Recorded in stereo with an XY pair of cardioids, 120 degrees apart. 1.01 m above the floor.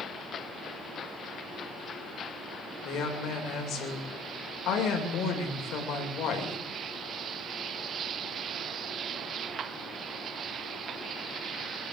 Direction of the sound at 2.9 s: 65° left.